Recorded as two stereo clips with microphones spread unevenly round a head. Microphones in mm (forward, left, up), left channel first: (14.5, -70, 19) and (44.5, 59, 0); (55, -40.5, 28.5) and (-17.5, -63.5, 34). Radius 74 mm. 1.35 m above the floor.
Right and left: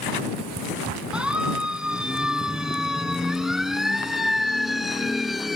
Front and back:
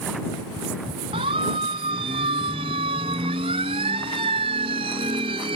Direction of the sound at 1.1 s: 160° left.